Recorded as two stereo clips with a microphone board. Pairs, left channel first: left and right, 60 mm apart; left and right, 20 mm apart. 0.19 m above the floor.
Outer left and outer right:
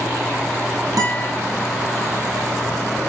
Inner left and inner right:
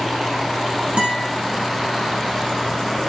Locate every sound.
1.0 s a guitar: 70° right (ahead or behind), 4 m